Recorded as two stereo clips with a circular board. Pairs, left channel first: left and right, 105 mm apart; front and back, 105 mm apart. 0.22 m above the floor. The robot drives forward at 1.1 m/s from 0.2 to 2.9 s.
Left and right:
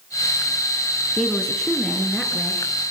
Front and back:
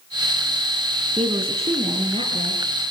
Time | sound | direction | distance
1.2 | a woman speaking | 175° left | 2.5 m